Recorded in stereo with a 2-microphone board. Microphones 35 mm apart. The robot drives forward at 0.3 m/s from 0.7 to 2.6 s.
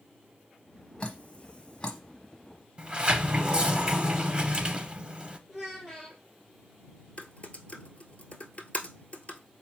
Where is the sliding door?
35° right (ahead or behind), 0.6 m.